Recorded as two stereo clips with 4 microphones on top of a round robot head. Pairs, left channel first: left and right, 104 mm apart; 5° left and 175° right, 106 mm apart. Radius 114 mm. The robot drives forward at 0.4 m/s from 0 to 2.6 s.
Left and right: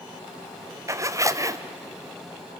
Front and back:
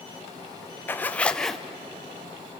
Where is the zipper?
55° right, 1.0 m; by 1.6 s 85° right, 1.0 m.